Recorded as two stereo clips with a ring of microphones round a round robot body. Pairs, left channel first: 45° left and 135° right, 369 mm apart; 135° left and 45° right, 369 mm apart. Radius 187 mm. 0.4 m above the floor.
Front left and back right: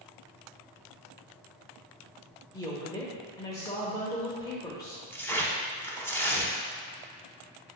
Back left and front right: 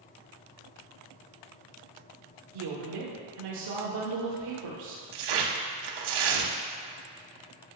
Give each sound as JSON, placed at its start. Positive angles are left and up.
{"t": 2.5, "sound": "a woman speaking", "azimuth_deg": -30, "distance_m": 1.2}
{"t": 5.1, "sound": "tearing paper", "azimuth_deg": -40, "distance_m": 0.9}